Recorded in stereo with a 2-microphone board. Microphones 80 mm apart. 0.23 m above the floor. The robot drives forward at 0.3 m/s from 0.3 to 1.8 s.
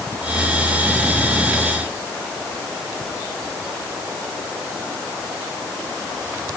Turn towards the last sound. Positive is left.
No sound to turn to.